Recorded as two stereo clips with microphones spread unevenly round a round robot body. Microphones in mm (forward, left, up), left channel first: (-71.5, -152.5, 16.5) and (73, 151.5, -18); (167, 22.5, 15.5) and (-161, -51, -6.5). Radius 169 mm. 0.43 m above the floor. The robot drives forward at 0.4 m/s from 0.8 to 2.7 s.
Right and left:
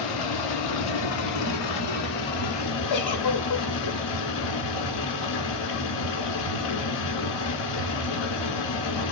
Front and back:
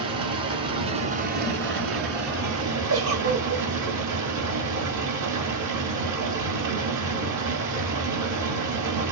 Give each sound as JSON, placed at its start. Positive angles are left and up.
{"t": 0.0, "sound": "running water", "azimuth_deg": -90, "distance_m": 1.1}
{"t": 2.9, "sound": "a giggle", "azimuth_deg": -125, "distance_m": 1.4}